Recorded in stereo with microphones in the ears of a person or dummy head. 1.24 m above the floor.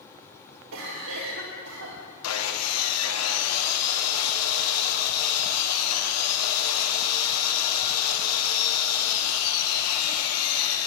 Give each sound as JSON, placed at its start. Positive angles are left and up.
{"t": 0.7, "sound": "a cough", "side_deg": -70, "distance_m": 1.4}
{"t": 2.2, "sound": "sawing", "side_deg": 70, "distance_m": 1.0}